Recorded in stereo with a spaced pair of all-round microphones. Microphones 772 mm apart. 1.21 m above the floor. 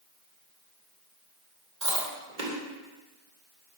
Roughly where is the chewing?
Right.